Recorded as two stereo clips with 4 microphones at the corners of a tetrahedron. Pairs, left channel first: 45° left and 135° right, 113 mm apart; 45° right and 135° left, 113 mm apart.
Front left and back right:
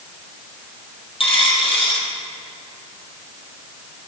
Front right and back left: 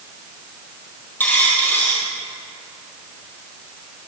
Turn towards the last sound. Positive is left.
turn(degrees=25)